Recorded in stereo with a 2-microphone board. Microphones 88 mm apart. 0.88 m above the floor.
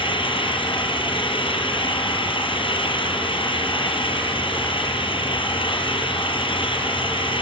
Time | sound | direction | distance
0.0 | an engine running | 70° left (ahead or behind) | 5 m